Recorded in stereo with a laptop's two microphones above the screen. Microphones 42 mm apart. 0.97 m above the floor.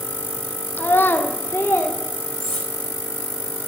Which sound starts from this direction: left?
A child speaking, at 0.8 s.